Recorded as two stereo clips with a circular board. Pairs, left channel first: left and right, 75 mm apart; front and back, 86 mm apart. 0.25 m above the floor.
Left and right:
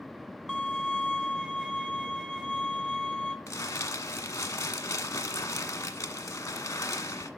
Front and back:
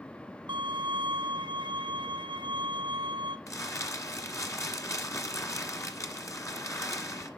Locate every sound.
0.5 s a violin: 170° right, 1.6 m
3.5 s crumpling: 50° left, 1.4 m